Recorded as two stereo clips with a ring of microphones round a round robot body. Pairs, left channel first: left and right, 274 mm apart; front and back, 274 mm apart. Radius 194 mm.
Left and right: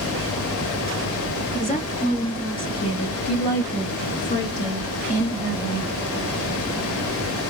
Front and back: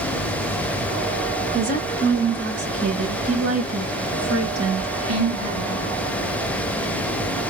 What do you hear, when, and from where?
1.5 s a woman speaking: 135° left, 1.7 m; by 5.9 s 175° left, 3.5 m